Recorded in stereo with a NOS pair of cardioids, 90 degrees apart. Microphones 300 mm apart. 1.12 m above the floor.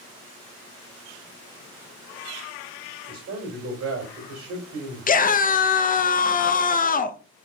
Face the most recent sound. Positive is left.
turn(degrees=30)